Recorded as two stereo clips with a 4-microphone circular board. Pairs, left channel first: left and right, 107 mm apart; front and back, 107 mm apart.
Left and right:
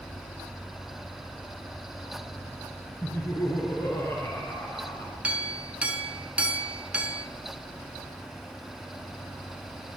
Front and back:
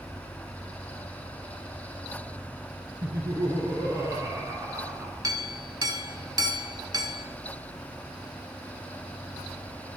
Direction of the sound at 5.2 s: 160° right.